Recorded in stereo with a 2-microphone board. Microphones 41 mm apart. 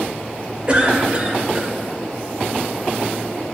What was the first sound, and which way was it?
A cough, 30° right (ahead or behind).